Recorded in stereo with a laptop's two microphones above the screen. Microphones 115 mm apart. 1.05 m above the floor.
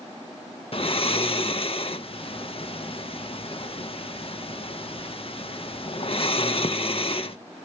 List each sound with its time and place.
0.7 s snoring: 55° left (ahead or behind), 0.5 m